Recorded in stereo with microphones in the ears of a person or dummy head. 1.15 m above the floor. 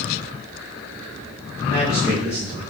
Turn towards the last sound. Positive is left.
turn(degrees=15)  # may be behind; listen again after turning